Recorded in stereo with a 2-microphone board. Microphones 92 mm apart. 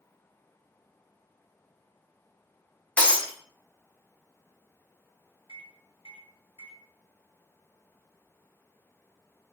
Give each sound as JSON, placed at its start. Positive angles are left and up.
{"t": 3.0, "sound": "breaking glass", "side_deg": 10, "distance_m": 0.7}
{"t": 5.5, "sound": "a microwave", "side_deg": 75, "distance_m": 1.3}